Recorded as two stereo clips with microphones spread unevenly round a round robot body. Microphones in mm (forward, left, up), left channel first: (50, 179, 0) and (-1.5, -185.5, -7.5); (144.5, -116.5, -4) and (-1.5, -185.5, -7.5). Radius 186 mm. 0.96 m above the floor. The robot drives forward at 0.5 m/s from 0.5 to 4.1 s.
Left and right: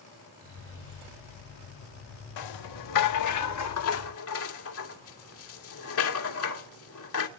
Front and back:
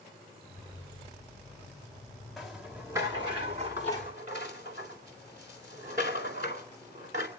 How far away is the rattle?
About 1.6 m.